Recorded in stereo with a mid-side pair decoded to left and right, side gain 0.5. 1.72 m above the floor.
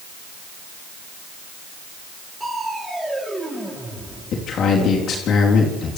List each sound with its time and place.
2.4 s crushing: 5° right, 7.5 m
4.3 s a man speaking: 60° left, 3.5 m